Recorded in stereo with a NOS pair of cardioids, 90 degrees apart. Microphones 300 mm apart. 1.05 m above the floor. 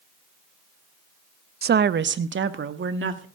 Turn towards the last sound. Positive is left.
turn(degrees=-40)